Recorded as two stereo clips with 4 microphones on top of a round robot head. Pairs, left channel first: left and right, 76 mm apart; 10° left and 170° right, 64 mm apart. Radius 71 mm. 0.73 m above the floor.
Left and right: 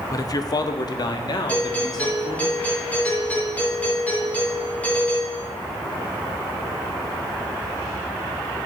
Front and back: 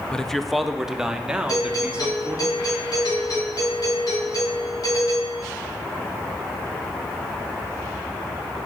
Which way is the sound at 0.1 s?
85° left.